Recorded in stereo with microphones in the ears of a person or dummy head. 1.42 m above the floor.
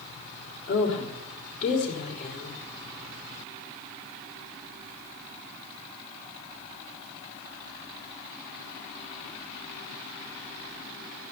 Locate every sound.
0.7 s a woman speaking: 40° left (ahead or behind), 3.5 m